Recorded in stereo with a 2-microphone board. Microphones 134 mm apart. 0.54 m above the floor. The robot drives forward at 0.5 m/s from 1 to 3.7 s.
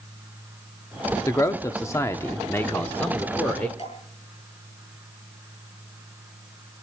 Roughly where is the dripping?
Left.